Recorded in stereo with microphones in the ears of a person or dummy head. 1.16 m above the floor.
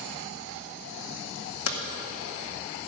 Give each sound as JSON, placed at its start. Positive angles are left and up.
{"t": 1.7, "sound": "hammering", "side_deg": 70, "distance_m": 2.0}